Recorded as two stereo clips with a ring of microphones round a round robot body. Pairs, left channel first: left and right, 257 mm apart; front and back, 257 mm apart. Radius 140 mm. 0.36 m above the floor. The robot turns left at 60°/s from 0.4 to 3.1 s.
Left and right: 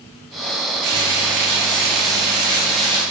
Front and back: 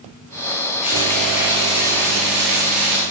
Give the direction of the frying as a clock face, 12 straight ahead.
2 o'clock.